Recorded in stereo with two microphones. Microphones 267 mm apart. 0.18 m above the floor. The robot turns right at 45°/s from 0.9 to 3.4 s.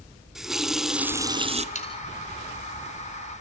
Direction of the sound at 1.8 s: 25° left (ahead or behind).